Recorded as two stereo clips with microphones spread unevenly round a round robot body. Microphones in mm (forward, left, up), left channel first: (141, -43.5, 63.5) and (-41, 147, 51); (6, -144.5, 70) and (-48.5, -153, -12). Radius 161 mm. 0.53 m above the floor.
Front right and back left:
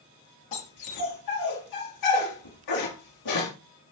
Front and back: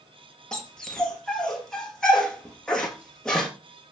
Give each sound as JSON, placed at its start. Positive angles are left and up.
{"t": 0.5, "sound": "a dog barking", "azimuth_deg": -65, "distance_m": 3.0}